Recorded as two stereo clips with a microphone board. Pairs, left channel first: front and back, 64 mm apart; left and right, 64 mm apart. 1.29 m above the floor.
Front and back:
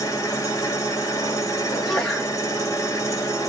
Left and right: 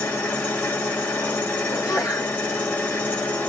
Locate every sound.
0.0 s an engine running: 30° left, 1.5 m
1.7 s a sneeze: 80° left, 1.8 m